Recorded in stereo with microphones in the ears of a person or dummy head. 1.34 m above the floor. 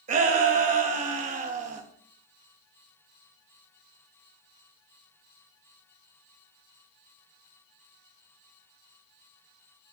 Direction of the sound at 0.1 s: 45° right (ahead or behind).